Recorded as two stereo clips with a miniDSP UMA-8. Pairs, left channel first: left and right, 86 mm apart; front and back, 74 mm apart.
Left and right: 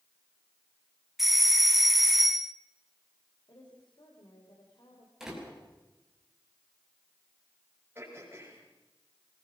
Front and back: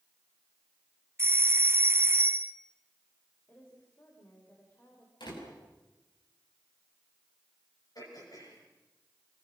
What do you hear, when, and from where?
1.2 s a doorbell: 175° right, 0.7 m
3.5 s a woman speaking: 60° left, 4 m
5.2 s a door slam: 5° right, 6 m
8.0 s throat clearing: 25° right, 8 m